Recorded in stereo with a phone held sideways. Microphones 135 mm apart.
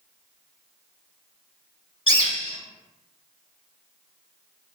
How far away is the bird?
About 0.8 m.